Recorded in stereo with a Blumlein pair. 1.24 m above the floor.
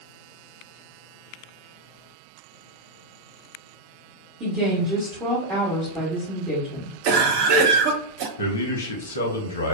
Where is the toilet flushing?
No toilet flushing in this recording.